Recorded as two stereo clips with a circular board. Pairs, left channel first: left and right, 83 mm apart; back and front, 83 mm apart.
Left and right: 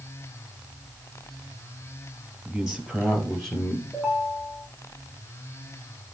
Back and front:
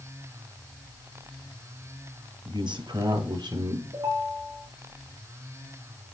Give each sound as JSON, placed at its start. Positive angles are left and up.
{"t": 2.5, "sound": "a man speaking", "azimuth_deg": -5, "distance_m": 3.5}
{"t": 3.9, "sound": "a ringtone", "azimuth_deg": -5, "distance_m": 3.5}